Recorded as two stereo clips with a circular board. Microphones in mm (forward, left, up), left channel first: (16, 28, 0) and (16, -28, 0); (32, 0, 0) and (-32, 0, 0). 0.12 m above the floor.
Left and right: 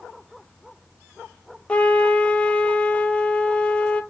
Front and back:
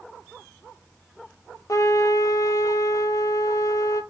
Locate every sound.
1.7 s a trumpet: 20° left, 0.5 m